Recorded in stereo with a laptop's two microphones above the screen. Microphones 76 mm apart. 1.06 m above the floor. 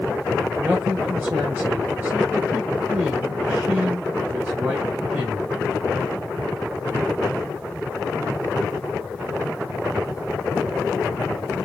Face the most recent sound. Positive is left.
turn(degrees=-30)  # may be behind; listen again after turning